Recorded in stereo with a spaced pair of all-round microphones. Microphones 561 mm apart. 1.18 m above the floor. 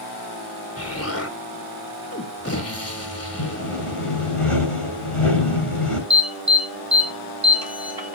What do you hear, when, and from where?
0.8 s an explosion: 25° left (ahead or behind), 2.5 m
3.4 s sawing: 65° left (ahead or behind), 7.5 m
6.1 s an alarm: 40° right (ahead or behind), 3 m